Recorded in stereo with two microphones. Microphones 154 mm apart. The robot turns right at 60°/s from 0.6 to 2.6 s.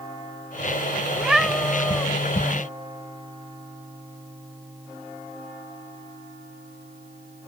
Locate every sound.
1.1 s a cat meowing: 10° right (ahead or behind); by 2.1 s 15° left (ahead or behind)